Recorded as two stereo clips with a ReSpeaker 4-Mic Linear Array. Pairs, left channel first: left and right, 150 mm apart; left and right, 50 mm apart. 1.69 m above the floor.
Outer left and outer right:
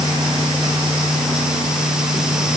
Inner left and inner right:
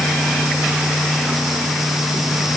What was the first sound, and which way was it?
Only background noise.